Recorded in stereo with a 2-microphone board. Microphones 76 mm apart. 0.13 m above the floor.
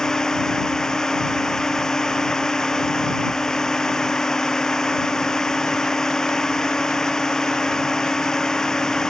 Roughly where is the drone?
Centre.